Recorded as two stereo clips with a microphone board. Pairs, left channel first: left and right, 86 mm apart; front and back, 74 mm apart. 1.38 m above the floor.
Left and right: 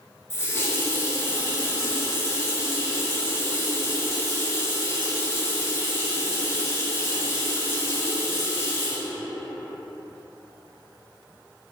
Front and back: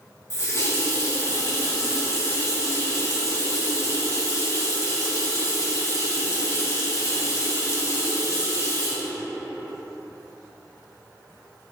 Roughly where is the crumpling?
I don't hear crumpling.